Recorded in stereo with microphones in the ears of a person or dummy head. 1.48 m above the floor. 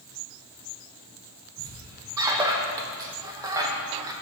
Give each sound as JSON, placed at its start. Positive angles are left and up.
{"t": 1.6, "sound": "a squeak", "side_deg": -15, "distance_m": 0.7}